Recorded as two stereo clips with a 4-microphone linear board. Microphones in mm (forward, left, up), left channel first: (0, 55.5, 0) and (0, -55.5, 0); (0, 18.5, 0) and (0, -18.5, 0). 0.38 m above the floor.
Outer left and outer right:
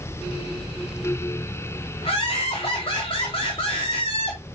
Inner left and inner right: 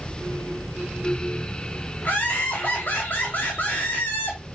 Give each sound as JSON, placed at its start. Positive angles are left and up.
{"t": 2.0, "sound": "laughter", "side_deg": 55, "distance_m": 2.5}